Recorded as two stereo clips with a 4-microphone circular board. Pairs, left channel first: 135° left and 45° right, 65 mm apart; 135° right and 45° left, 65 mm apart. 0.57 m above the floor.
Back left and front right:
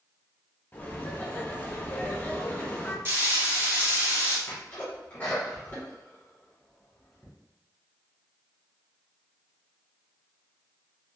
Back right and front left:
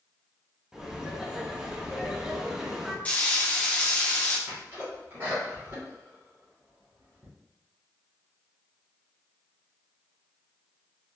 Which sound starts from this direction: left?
A sneeze, at 4.5 s.